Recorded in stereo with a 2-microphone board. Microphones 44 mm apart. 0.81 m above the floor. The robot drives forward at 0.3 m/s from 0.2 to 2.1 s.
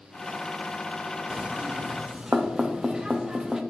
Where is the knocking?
20° right (ahead or behind), 0.5 m; by 3.6 s 15° right (ahead or behind), 0.7 m.